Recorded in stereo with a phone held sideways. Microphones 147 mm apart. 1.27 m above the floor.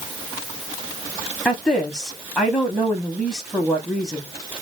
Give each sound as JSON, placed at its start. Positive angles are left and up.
{"t": 1.4, "sound": "a woman speaking", "side_deg": 5, "distance_m": 0.8}